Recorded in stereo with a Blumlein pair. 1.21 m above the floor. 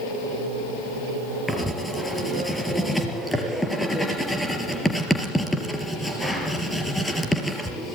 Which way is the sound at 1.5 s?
5° left.